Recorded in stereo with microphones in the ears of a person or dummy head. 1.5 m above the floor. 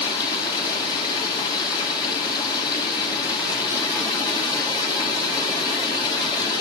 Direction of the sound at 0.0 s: 25° left (ahead or behind).